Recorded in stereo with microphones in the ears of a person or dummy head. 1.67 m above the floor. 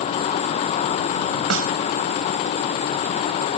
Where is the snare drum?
70° right (ahead or behind).